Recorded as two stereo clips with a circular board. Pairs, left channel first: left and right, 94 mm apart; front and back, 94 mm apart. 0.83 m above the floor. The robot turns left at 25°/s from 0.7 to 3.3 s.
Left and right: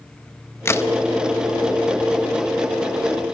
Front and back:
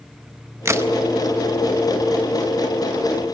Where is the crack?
140° left, 0.7 m; by 0.9 s 135° left, 0.7 m.